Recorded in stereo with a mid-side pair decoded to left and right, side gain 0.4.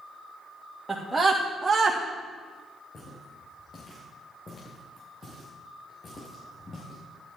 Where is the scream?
10° right, 3 m; by 2.0 s 25° right, 2 m.